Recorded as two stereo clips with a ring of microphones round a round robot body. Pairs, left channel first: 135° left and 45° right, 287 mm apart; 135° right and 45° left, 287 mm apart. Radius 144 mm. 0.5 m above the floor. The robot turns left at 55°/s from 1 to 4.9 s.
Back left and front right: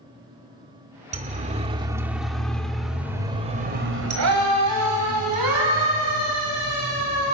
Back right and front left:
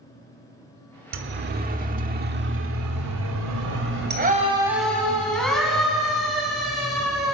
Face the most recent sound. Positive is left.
turn(degrees=-45)